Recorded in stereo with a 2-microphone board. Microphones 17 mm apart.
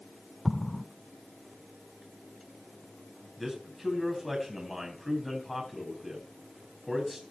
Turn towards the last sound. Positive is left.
turn(degrees=0)  # may be behind; listen again after turning